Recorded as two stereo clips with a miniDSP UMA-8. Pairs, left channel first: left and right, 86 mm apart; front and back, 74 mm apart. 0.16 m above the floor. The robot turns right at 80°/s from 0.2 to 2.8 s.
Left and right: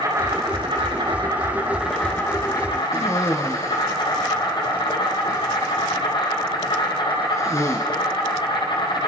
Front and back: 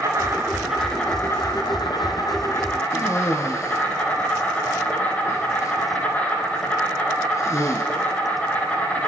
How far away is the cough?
About 3 m.